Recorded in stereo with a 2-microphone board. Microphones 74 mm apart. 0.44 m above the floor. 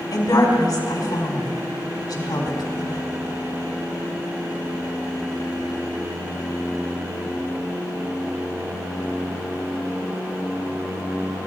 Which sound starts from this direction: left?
A woman speaking, at 0.1 s.